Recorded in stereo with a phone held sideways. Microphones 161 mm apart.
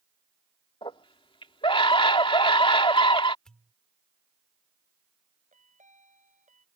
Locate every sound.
0.8 s a scream: 35° left (ahead or behind)
3.5 s a pop: 5° left (ahead or behind)
5.5 s a chime: 50° right (ahead or behind)